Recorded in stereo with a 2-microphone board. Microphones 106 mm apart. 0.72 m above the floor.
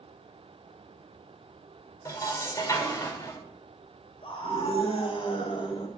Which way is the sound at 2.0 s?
35° left (ahead or behind).